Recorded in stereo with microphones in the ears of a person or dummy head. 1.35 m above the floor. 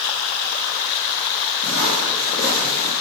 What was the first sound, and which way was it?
Footsteps, 50° left (ahead or behind).